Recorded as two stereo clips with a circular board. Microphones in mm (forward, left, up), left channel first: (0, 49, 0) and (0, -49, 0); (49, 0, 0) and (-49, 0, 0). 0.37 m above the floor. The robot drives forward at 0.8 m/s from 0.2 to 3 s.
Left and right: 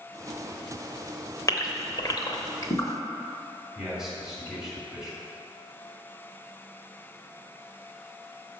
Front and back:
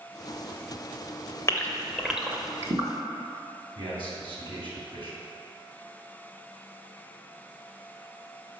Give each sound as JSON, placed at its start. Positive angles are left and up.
{"t": 1.5, "sound": "a gasp", "azimuth_deg": 50, "distance_m": 0.9}
{"t": 3.8, "sound": "a man speaking", "azimuth_deg": -170, "distance_m": 2.0}